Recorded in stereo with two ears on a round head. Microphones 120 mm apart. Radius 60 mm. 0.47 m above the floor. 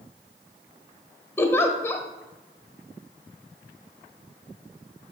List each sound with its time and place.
1.4 s a giggle: 20° left (ahead or behind), 1.0 m